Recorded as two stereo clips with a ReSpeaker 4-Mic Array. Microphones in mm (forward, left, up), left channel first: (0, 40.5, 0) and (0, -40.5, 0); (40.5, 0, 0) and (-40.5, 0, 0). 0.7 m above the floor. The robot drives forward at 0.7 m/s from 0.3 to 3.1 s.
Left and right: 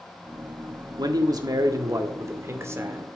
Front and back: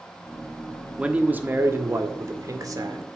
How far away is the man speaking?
About 1.3 m.